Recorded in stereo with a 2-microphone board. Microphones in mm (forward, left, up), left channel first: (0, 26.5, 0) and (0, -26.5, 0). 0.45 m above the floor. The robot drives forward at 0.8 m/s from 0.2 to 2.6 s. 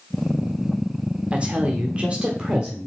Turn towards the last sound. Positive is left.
turn(degrees=-20)  # may be behind; listen again after turning